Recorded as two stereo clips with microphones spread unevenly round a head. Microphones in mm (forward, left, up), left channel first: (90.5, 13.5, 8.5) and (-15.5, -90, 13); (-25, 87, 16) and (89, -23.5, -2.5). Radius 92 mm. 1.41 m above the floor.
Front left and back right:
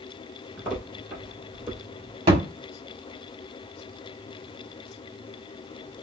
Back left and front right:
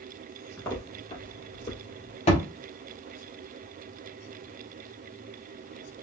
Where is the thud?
175° left, 1.2 m.